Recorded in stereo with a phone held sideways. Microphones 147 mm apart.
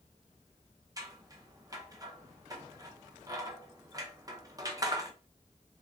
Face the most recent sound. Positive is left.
turn(degrees=-25)  # may be behind; listen again after turning